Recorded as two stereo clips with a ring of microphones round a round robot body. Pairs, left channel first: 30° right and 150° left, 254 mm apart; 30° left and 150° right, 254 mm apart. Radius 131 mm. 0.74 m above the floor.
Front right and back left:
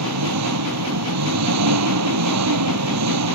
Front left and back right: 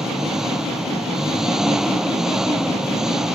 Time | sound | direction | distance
0.0 | an engine running | 120° left | ?